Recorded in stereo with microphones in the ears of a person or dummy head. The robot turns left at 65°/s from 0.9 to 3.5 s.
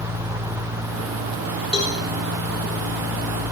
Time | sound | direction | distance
1.7 | a cowbell | 30° left (ahead or behind) | 4.5 m